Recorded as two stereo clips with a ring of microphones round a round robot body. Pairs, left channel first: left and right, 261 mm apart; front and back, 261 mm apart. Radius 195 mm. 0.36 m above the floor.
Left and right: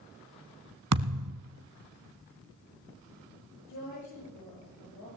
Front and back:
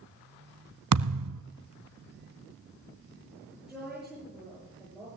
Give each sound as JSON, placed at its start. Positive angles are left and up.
{"t": 0.9, "sound": "a thud", "azimuth_deg": -135, "distance_m": 0.7}
{"t": 3.7, "sound": "a woman speaking", "azimuth_deg": 90, "distance_m": 8.5}